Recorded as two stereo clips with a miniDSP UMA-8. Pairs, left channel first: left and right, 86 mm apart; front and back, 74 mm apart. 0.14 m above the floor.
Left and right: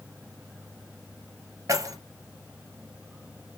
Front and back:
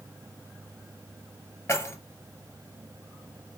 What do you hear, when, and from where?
1.7 s keys jangling: 45° right, 1.8 m